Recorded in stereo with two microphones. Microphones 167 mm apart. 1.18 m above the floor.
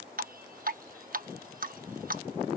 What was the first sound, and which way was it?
Dripping, 60° right (ahead or behind).